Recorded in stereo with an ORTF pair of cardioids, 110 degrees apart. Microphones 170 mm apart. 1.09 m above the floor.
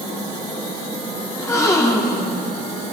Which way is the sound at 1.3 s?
20° left.